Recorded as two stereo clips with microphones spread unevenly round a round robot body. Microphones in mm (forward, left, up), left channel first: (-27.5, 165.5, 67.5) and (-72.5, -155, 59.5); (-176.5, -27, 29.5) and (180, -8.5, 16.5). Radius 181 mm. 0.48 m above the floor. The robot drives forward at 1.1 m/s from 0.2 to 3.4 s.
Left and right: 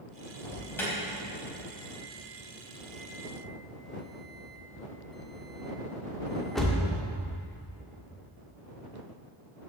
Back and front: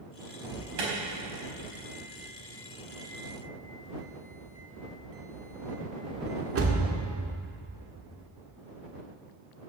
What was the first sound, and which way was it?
An alarm, straight ahead.